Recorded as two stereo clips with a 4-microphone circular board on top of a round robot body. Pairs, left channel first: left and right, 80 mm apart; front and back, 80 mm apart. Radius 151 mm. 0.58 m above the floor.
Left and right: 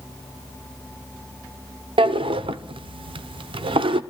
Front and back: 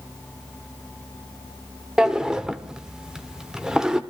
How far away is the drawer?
About 0.7 m.